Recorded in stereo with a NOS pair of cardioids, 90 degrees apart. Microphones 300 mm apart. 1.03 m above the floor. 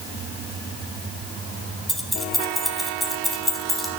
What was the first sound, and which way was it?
Keys jangling, straight ahead.